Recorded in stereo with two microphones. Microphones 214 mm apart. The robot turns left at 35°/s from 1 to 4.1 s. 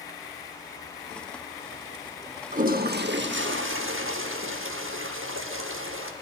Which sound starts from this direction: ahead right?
A toilet flushing, at 2.5 s.